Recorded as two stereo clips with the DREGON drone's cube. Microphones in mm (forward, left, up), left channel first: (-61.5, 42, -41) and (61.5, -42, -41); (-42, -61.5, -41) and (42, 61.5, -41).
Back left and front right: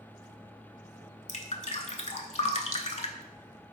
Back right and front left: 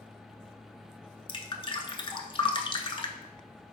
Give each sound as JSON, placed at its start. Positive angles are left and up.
{"t": 1.3, "sound": "dripping", "azimuth_deg": 180, "distance_m": 0.5}